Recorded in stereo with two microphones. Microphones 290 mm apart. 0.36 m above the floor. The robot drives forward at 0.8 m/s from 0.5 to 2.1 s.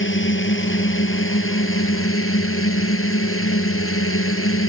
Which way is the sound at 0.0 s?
45° left (ahead or behind).